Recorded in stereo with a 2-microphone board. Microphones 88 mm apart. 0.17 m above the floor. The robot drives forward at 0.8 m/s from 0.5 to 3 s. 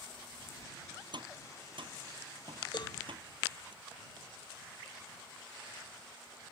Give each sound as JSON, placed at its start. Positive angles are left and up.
{"t": 1.1, "sound": "tapping", "side_deg": -65}
{"t": 2.7, "sound": "a cowbell", "side_deg": 55}